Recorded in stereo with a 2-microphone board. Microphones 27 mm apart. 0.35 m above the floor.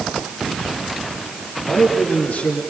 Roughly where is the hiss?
No hiss in this recording.